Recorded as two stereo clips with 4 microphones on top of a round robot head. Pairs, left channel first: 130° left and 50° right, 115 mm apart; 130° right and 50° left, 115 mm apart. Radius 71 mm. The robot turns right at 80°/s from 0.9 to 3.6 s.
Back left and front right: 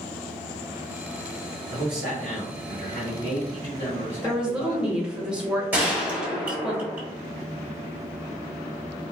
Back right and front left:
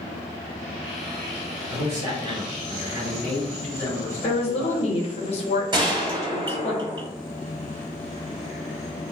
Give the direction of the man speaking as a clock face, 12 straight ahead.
12 o'clock.